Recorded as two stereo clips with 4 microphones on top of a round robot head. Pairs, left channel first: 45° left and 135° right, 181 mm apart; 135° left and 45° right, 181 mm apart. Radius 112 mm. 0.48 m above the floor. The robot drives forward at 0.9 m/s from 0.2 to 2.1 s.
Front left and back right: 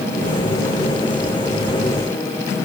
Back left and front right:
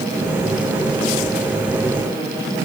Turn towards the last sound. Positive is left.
No sound to turn to.